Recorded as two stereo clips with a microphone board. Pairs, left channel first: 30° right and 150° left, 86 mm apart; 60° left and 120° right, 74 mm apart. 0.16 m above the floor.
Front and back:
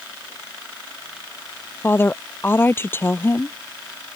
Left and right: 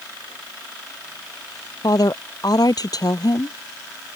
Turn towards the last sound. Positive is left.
turn(degrees=35)